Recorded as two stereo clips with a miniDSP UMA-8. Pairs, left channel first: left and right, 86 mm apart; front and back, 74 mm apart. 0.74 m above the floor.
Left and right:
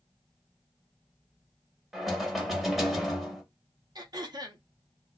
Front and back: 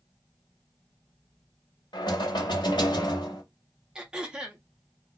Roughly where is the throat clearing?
Right.